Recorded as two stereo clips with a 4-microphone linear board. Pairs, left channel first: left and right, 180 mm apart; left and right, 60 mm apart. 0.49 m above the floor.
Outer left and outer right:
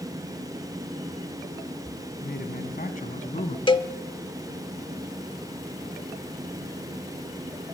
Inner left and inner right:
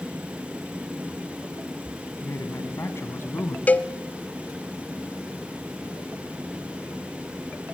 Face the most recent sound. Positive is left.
turn(degrees=30)  # may be behind; listen again after turning